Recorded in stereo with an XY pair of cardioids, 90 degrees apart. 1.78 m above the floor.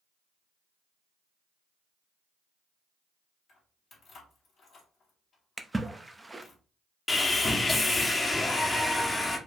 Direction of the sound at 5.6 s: 15° right.